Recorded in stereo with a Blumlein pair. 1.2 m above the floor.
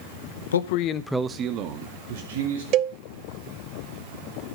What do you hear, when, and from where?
0.5 s a man speaking: 70° left, 1.0 m; by 2.6 s 55° right, 2.5 m
2.7 s a cowbell: 40° right, 0.7 m